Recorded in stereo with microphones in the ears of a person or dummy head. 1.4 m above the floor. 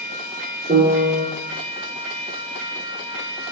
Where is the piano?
30° right (ahead or behind), 3.5 m.